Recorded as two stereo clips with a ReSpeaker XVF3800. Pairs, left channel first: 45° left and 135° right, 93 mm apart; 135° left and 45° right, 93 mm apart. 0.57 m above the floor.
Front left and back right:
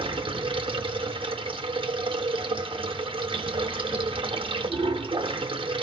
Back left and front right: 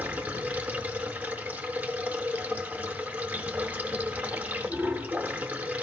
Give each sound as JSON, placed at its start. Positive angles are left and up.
{"t": 0.0, "sound": "running water", "azimuth_deg": -120, "distance_m": 0.8}